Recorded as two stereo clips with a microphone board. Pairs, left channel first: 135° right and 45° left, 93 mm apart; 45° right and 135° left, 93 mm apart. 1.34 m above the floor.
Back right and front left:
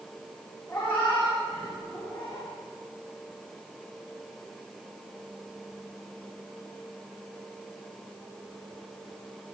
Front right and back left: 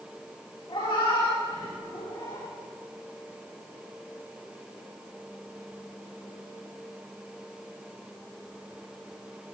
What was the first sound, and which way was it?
A cat meowing, 65° right.